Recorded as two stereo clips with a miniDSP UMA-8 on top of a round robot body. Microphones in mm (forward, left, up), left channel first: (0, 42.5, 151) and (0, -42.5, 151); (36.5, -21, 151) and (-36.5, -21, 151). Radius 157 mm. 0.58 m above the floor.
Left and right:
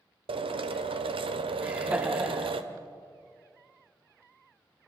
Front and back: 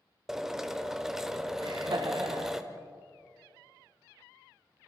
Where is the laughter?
165° right, 2.5 m.